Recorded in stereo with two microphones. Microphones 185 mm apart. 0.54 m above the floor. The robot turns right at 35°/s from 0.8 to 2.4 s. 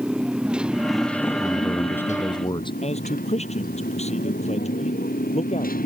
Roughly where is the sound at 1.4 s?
Ahead.